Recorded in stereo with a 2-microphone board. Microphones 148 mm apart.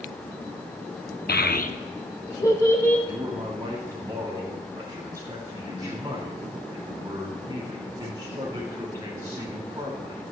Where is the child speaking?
85° left, 0.7 m; by 3.0 s 15° left (ahead or behind), 1.7 m.